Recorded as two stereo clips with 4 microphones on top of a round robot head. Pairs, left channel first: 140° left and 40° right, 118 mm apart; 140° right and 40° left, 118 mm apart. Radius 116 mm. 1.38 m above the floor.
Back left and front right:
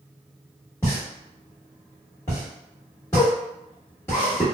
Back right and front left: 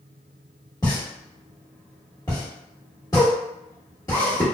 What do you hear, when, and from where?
0.8 s a pop: 170° right, 1.0 m